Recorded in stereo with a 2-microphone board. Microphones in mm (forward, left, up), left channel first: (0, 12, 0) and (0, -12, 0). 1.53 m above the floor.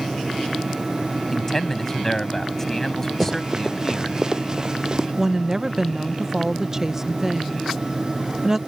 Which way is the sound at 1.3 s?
20° left (ahead or behind).